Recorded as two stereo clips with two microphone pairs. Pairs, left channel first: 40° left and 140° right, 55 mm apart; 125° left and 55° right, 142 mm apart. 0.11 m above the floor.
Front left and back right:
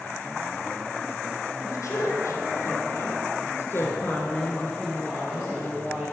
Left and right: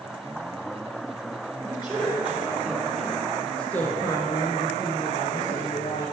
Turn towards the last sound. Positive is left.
turn(degrees=160)